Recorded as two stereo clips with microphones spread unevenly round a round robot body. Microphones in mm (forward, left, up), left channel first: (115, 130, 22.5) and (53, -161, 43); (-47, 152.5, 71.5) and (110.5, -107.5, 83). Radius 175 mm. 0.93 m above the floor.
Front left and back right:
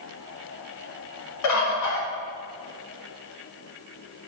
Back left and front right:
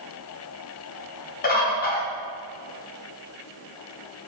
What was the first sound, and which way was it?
A bird, 60° left.